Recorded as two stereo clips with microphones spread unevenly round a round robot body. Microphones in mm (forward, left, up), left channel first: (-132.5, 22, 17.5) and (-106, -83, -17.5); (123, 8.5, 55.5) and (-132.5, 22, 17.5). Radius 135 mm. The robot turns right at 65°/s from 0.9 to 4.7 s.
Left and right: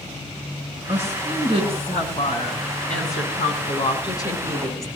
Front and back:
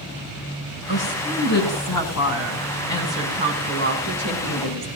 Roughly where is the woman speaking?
Ahead right.